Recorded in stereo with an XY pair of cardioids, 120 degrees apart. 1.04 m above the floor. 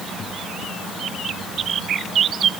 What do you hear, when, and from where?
Only background noise.